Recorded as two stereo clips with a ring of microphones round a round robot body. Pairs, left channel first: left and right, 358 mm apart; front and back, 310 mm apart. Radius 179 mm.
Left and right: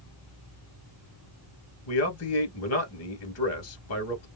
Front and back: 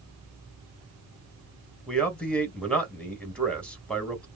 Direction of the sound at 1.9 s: 85° left.